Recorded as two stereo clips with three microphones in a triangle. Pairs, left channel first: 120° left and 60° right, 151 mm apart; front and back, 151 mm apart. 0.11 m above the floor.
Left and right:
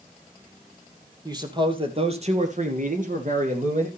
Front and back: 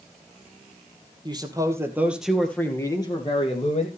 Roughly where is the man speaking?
Behind right.